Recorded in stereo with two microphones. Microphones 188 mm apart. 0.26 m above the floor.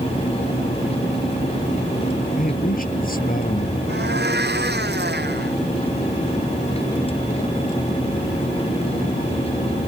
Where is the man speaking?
45° left (ahead or behind).